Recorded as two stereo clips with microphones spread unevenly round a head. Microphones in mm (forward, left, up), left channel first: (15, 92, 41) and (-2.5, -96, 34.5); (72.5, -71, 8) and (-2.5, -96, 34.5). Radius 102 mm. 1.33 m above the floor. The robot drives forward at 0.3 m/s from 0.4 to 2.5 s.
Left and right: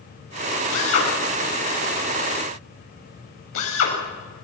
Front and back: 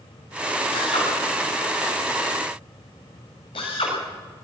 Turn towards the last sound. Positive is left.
turn(degrees=65)